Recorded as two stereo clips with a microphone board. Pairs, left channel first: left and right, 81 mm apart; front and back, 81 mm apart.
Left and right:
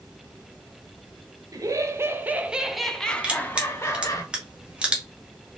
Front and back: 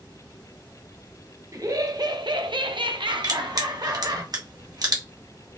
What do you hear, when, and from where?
1.5 s laughter: 130° right, 0.9 m; by 4.2 s 140° left, 1.1 m
3.2 s crushing: 165° right, 1.2 m